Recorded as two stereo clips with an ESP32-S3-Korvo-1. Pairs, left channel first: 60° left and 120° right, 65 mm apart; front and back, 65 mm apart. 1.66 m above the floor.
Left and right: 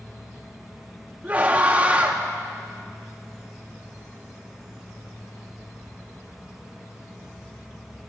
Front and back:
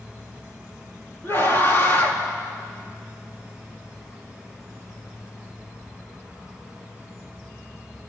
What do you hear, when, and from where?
1.2 s a scream: 50° right, 4 m